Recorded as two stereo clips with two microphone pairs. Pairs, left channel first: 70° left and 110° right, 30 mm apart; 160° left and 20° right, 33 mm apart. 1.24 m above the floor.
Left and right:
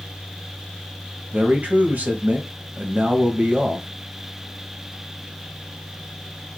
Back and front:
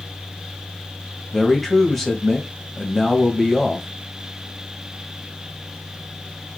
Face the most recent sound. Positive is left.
turn(degrees=-115)